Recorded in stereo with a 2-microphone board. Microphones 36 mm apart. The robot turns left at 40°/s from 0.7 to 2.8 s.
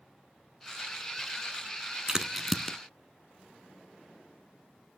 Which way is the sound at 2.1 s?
20° right (ahead or behind).